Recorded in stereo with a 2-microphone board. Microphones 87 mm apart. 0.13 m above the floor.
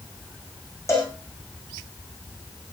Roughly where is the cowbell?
Left.